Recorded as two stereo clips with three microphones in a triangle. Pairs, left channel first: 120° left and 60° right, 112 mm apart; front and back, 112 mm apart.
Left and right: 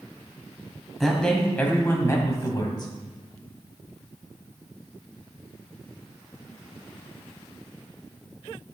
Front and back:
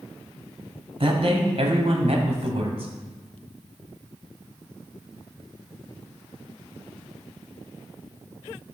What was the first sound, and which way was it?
A man speaking, 150° right.